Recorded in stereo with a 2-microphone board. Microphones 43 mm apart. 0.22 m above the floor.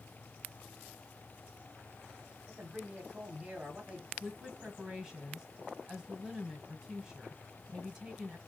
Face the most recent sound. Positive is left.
turn(degrees=-15)  # may be behind; listen again after turning